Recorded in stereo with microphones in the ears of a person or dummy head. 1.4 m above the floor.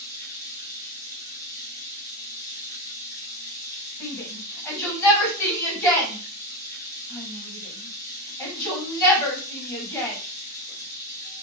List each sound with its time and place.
0.0 s running water: 20° left (ahead or behind), 0.9 m
4.0 s a shout: 15° left (ahead or behind), 1.5 m